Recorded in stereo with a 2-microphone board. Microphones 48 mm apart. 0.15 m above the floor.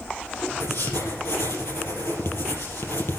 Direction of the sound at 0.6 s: 70° left (ahead or behind).